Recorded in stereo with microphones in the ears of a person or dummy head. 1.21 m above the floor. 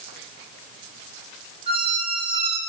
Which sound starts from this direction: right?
A squeak, at 1.7 s.